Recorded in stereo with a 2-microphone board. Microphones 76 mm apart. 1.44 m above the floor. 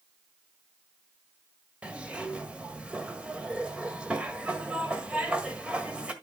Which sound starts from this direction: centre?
A zipper, at 1.8 s.